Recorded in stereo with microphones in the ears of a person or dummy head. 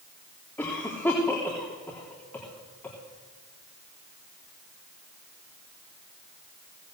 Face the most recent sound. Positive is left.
turn(degrees=10)  # may be behind; listen again after turning